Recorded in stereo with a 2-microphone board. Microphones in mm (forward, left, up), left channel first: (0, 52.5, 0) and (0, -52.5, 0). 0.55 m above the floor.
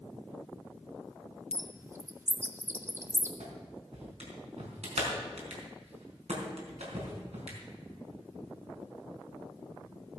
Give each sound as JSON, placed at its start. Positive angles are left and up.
{"t": 1.5, "sound": "a bird", "side_deg": -25, "distance_m": 1.2}
{"t": 3.4, "sound": "a clap", "side_deg": -80, "distance_m": 4.0}